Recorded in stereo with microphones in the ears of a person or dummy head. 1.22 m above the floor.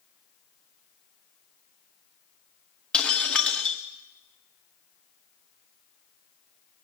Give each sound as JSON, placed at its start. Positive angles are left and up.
{"t": 2.9, "sound": "breaking glass", "side_deg": 5, "distance_m": 1.0}